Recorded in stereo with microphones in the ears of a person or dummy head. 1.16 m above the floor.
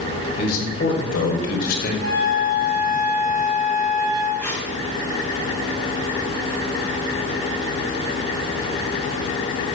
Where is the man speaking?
50° left (ahead or behind), 5 m; by 1.9 s 55° left (ahead or behind), 5.5 m.